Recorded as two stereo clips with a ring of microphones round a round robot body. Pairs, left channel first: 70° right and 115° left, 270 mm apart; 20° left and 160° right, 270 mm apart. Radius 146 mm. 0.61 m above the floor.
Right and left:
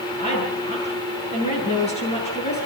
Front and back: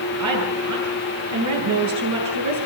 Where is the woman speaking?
135° right, 9.5 m.